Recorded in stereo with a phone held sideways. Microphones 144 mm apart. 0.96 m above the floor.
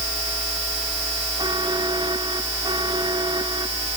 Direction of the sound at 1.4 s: 30° right (ahead or behind).